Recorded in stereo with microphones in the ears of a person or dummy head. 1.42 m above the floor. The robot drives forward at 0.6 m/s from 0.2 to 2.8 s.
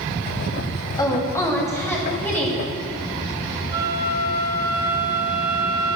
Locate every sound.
1.0 s a woman speaking: 20° left (ahead or behind), 1.4 m; by 2.6 s 10° left (ahead or behind), 2.5 m
3.7 s a flute: 25° right (ahead or behind), 1.0 m